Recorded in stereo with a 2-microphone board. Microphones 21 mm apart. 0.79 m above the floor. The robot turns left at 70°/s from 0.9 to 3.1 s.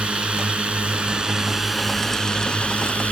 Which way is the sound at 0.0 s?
115° right.